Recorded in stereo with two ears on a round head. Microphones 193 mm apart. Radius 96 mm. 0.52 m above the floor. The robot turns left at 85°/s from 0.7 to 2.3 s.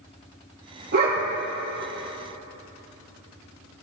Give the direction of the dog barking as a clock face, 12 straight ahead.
4 o'clock.